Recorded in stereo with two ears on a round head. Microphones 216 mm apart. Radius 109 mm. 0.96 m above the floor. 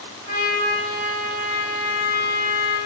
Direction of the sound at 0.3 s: 15° left (ahead or behind).